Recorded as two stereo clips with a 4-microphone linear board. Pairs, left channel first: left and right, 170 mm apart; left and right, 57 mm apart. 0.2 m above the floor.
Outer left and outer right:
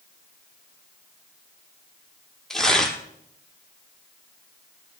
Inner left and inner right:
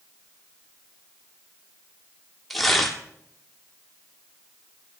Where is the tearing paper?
Centre (ahead or behind), 1.1 m.